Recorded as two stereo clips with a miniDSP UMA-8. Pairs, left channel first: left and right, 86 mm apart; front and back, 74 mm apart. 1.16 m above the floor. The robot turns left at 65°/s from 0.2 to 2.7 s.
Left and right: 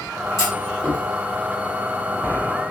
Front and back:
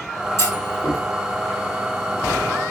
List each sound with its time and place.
0.4 s a clunk: 45° left, 1.4 m; by 1.0 s 5° left, 1.4 m